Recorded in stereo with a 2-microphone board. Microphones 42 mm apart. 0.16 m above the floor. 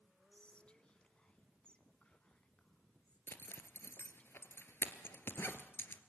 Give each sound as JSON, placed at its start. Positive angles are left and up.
{"t": 0.3, "sound": "whispering", "side_deg": 25, "distance_m": 1.4}
{"t": 3.3, "sound": "a zipper", "side_deg": 60, "distance_m": 1.8}